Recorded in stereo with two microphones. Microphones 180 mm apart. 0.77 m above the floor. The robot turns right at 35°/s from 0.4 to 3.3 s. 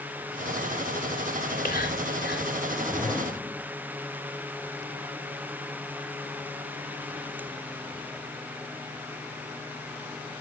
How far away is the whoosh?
About 1.1 m.